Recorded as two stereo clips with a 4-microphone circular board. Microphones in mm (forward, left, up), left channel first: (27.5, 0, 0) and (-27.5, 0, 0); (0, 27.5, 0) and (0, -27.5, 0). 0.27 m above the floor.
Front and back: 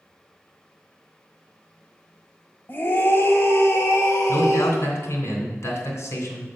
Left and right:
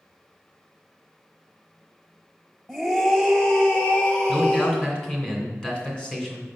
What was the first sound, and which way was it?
A scream, 5° right.